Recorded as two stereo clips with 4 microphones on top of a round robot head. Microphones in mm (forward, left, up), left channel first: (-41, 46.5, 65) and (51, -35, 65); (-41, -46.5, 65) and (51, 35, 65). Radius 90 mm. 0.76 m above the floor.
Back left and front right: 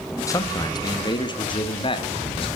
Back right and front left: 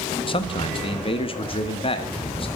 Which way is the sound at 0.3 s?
165° right.